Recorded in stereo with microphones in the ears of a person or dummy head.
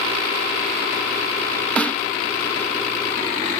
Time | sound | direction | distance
1.8 | a snare drum | 10° left (ahead or behind) | ?